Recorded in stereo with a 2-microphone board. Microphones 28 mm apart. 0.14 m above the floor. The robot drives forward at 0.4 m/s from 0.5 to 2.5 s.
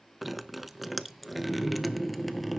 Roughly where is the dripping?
Centre.